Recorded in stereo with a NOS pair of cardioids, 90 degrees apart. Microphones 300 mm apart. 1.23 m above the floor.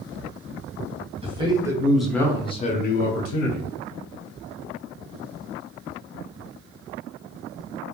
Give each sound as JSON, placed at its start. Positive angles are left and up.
{"t": 1.2, "sound": "a man speaking", "azimuth_deg": -20, "distance_m": 1.1}